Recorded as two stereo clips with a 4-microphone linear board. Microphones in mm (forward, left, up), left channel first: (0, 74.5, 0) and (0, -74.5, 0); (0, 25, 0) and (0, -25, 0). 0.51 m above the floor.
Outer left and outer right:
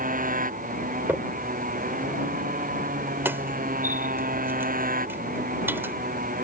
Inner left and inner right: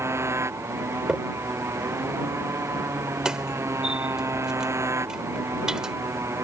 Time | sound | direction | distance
0.0 | a motorcycle | 75° right (ahead or behind) | ?
1.1 | a crack | 15° right (ahead or behind) | ?